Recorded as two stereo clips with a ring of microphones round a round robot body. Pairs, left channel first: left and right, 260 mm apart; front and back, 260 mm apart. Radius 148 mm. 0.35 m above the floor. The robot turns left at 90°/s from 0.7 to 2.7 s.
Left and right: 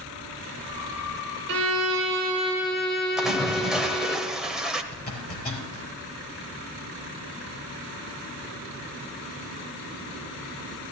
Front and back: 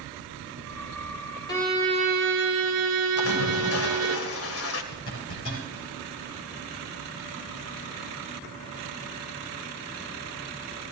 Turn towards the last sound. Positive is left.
turn(degrees=35)